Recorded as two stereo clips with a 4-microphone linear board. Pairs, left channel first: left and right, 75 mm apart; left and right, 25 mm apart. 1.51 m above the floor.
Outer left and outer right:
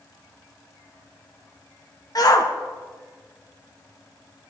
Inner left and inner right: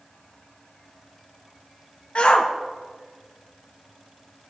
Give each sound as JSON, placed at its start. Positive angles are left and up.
{"t": 2.1, "sound": "a shout", "side_deg": 55, "distance_m": 2.0}